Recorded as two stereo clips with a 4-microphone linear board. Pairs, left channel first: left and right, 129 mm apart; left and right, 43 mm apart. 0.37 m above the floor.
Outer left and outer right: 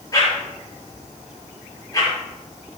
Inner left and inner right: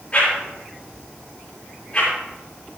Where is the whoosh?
30° left (ahead or behind), 5.5 m.